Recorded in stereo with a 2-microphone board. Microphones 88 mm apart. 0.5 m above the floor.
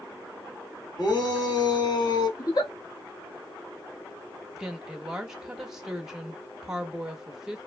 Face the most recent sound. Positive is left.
turn(degrees=-5)  # may be behind; listen again after turning